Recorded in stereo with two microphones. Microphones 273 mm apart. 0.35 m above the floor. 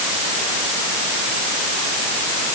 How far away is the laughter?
No laughter in this recording.